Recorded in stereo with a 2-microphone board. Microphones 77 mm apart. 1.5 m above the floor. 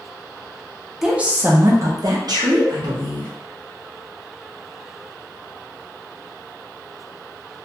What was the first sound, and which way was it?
A woman speaking, 5° right (ahead or behind).